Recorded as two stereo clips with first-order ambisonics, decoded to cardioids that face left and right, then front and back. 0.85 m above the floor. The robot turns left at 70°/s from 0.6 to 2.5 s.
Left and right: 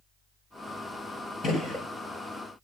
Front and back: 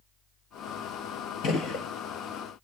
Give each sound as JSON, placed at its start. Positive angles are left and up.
{"t": 1.4, "sound": "a gunshot", "azimuth_deg": 35, "distance_m": 1.0}